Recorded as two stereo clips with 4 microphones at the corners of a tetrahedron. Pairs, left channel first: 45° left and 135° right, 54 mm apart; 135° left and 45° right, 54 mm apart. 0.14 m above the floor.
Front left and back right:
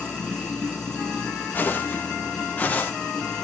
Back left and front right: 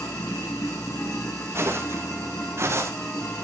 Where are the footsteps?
10° right, 6.5 m; by 2.9 s 15° right, 5.5 m.